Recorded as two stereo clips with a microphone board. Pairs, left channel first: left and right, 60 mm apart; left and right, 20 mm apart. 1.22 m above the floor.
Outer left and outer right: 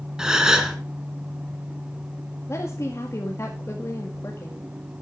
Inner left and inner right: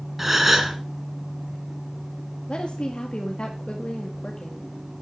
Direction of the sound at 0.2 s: 10° right (ahead or behind).